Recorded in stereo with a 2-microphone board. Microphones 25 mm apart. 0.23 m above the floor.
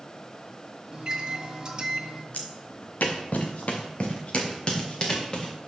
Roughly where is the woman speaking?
I don't hear a woman speaking.